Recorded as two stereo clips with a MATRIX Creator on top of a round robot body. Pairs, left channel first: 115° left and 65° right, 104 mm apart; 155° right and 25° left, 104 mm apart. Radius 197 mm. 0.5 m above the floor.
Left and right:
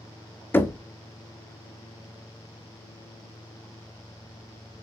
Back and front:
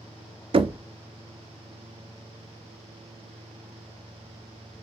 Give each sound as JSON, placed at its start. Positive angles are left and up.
{"t": 0.5, "sound": "knocking", "azimuth_deg": 45, "distance_m": 0.5}